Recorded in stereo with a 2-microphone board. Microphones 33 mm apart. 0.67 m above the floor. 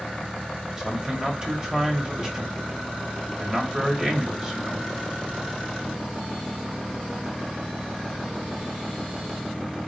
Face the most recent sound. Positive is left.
turn(degrees=-20)  # may be behind; listen again after turning